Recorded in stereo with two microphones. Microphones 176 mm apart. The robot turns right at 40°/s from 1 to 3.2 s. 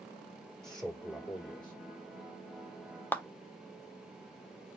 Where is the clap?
10° left (ahead or behind), 0.6 m.